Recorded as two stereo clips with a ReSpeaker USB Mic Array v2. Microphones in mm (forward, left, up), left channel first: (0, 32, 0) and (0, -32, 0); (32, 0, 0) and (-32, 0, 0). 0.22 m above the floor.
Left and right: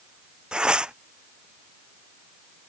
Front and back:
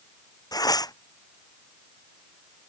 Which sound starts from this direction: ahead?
Tearing paper, at 0.5 s.